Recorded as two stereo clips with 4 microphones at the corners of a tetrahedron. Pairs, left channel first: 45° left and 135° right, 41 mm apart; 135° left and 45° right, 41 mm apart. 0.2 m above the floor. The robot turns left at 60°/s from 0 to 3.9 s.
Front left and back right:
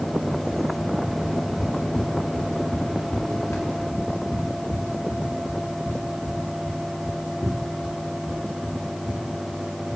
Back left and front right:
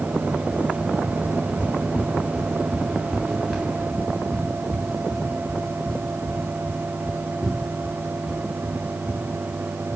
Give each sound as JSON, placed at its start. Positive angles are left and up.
{"t": 1.2, "sound": "footsteps", "azimuth_deg": 160, "distance_m": 2.0}